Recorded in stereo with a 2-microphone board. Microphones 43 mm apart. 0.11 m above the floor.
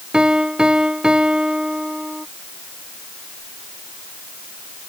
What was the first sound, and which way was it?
A piano, 20° right (ahead or behind).